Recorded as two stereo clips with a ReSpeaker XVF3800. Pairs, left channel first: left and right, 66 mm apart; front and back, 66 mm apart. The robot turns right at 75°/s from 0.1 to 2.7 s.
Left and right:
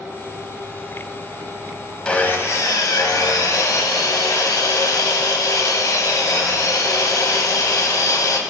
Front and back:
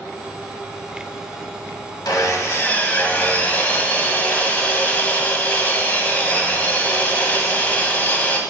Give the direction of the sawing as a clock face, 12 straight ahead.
12 o'clock.